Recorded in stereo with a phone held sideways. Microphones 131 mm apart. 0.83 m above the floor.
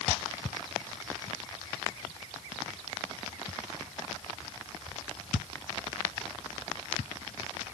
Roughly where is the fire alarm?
I don't hear a fire alarm.